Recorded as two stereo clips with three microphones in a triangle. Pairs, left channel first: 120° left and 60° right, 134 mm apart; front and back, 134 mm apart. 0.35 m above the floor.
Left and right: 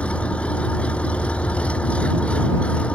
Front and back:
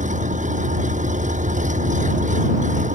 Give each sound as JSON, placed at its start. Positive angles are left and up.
{"t": 0.0, "sound": "an engine running", "azimuth_deg": -160}